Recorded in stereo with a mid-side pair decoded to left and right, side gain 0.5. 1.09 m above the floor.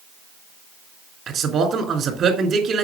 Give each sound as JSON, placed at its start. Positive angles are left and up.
{"t": 1.3, "sound": "a man speaking", "azimuth_deg": -55, "distance_m": 3.5}